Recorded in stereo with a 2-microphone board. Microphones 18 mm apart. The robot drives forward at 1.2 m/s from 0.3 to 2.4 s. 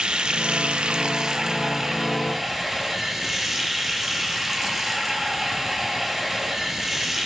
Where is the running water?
55° right (ahead or behind), 0.9 m; by 7.3 s 20° right (ahead or behind), 2.5 m.